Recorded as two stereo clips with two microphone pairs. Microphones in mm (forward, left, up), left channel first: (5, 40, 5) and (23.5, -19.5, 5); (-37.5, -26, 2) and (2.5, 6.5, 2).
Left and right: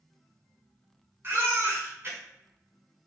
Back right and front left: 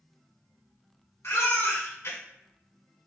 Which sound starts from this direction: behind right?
A baby crying, at 1.2 s.